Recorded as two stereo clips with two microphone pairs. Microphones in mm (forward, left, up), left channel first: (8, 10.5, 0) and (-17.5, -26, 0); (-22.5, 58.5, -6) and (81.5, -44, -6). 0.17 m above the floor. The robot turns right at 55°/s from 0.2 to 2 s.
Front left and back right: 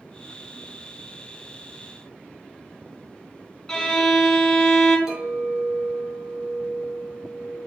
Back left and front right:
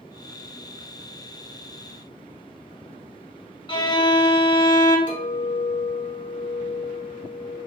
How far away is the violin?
About 0.5 m.